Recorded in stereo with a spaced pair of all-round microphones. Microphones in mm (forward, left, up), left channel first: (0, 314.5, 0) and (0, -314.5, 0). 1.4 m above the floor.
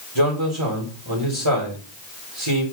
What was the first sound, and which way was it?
A man speaking, 40° right (ahead or behind).